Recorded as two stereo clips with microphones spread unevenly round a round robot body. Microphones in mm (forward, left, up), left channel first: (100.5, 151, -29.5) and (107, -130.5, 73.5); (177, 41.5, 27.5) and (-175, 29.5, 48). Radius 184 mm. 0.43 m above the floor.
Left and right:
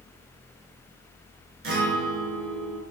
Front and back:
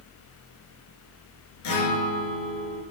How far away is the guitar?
About 4 m.